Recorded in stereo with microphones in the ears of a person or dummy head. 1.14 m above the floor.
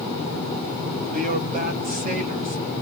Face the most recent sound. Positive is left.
turn(degrees=-45)  # may be behind; listen again after turning